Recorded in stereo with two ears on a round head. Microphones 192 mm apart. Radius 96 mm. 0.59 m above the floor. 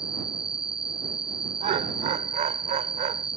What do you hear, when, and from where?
0.0 s an insect: 5° right (ahead or behind)
1.6 s laughter: 35° right (ahead or behind)